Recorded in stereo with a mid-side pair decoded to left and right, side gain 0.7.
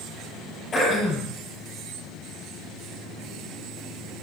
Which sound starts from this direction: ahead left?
Throat clearing, at 0.7 s.